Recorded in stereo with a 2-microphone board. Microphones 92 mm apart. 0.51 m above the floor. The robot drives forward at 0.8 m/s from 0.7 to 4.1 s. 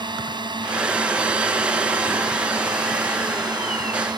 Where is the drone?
55° right (ahead or behind); by 4.2 s 50° right (ahead or behind).